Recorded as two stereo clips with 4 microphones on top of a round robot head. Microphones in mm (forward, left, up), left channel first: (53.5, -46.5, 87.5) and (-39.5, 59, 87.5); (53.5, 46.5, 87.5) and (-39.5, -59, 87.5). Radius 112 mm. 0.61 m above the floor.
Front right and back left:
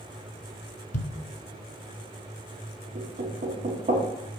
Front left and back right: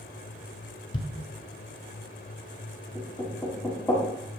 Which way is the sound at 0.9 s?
10° right.